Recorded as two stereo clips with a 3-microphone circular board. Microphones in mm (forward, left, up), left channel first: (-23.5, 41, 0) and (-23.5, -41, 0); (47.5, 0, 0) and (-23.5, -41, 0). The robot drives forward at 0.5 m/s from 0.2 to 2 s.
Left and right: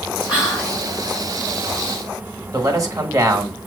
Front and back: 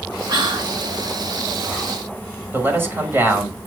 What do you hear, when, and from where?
0.3 s whispering: 165° right, 3 m
2.5 s a man speaking: 100° right, 1.5 m